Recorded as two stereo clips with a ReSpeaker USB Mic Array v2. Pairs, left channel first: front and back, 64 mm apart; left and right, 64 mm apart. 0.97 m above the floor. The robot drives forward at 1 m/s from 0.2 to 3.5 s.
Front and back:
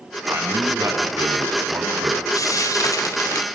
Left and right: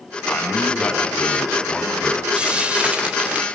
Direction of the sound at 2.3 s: 15° right.